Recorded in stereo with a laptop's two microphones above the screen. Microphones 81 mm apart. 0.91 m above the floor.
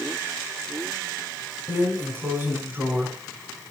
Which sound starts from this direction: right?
A drawer, at 1.7 s.